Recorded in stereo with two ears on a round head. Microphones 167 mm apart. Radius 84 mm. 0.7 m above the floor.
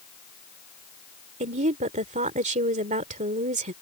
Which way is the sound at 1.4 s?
40° right (ahead or behind).